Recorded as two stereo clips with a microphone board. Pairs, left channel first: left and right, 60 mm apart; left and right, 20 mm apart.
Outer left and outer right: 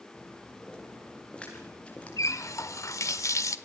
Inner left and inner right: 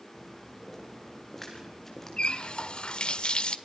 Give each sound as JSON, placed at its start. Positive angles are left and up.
{"t": 0.1, "sound": "footsteps", "side_deg": 10, "distance_m": 8.5}
{"t": 2.2, "sound": "a running tap", "side_deg": 60, "distance_m": 1.2}